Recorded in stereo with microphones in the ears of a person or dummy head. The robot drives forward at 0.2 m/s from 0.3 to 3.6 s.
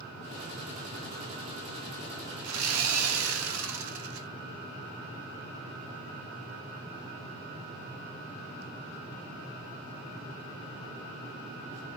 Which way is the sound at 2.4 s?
85° right.